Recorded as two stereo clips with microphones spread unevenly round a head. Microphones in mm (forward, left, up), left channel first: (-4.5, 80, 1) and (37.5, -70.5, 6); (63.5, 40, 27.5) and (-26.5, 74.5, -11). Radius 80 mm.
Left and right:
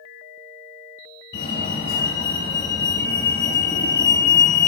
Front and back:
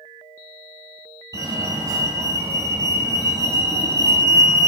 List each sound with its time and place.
1.3 s a fire alarm: 110° left, 3.5 m